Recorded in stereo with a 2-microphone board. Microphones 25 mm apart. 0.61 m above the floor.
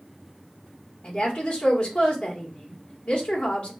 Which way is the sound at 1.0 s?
40° left (ahead or behind).